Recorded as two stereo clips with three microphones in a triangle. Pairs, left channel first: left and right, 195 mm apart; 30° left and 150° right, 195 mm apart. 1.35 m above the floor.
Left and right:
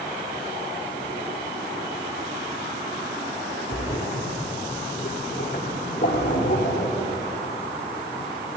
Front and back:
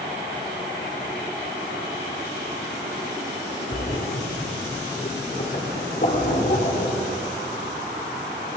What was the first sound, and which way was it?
A splash, 65° left.